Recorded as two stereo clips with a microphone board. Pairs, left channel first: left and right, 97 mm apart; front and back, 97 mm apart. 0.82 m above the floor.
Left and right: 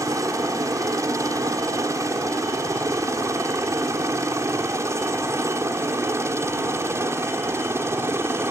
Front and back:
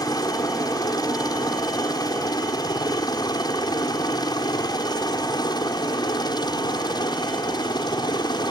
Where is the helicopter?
40° right; by 8.5 s 30° right.